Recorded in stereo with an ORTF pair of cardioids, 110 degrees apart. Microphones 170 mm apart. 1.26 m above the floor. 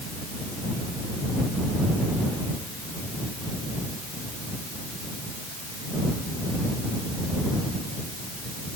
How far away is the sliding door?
I don't hear a sliding door.